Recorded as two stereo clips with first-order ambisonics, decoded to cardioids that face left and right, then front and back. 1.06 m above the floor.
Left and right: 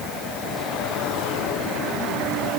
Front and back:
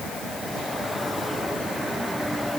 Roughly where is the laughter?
I don't hear laughter.